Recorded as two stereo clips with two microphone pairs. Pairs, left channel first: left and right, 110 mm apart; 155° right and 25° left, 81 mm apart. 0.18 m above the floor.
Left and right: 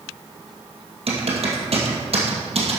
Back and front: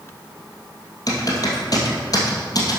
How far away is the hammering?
No hammering in this recording.